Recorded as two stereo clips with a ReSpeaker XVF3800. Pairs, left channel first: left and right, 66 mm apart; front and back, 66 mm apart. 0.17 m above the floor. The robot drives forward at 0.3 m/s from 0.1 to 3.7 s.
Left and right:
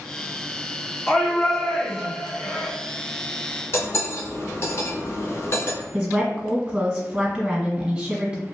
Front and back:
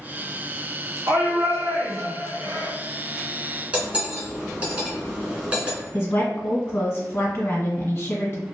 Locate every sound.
1.1 s a shout: straight behind, 1.9 m
3.7 s cutlery clinking: 115° left, 1.1 m
5.9 s a woman speaking: 30° right, 1.4 m